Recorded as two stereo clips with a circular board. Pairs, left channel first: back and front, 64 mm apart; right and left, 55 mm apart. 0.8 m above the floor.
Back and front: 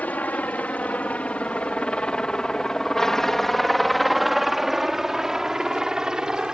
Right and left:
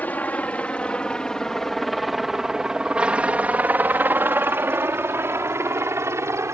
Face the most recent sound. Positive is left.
turn(degrees=80)